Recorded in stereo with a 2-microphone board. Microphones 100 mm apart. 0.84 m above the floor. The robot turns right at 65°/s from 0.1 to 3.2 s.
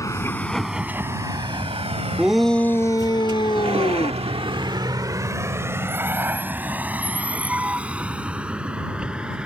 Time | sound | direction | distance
0.0 | a vehicle | 35° left (ahead or behind) | ?
2.2 | a shout | 10° right | ?